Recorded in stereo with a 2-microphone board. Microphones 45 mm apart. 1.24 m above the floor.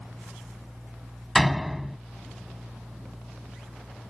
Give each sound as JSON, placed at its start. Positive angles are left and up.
{"t": 1.4, "sound": "a door slam", "side_deg": 0}